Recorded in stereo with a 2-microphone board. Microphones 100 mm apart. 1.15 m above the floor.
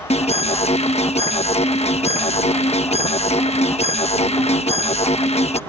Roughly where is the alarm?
Left.